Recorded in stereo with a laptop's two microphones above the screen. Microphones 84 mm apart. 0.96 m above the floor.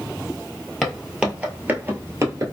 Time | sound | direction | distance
0.8 | footsteps | centre (ahead or behind) | 1.3 m